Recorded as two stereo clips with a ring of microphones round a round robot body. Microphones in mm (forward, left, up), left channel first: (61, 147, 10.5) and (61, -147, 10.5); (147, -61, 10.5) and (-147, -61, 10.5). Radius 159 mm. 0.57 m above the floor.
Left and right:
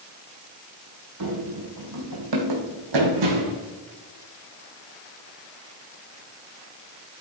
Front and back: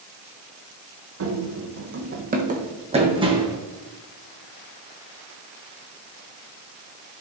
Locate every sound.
1.2 s running footsteps: 135° right, 1.7 m; by 3.6 s 100° right, 2 m